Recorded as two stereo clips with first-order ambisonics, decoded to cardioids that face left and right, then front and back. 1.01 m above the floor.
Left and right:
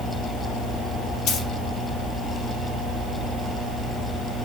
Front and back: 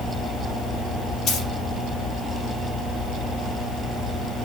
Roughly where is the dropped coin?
Ahead left.